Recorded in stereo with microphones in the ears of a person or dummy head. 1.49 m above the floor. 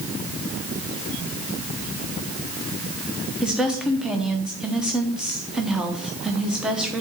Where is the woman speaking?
Centre (ahead or behind), 0.9 m.